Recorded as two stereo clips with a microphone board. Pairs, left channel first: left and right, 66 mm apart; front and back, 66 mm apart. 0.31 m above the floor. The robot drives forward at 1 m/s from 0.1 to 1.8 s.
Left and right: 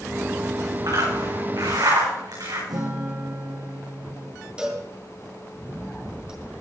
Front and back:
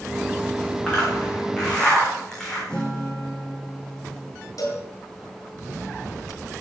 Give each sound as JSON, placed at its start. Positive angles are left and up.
{"t": 0.9, "sound": "a zipper", "azimuth_deg": -75, "distance_m": 7.0}
{"t": 2.7, "sound": "a guitar", "azimuth_deg": -80, "distance_m": 4.5}
{"t": 4.6, "sound": "a cowbell", "azimuth_deg": -15, "distance_m": 3.0}